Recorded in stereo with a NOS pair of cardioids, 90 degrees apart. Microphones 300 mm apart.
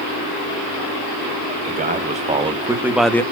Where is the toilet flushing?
No toilet flushing in this recording.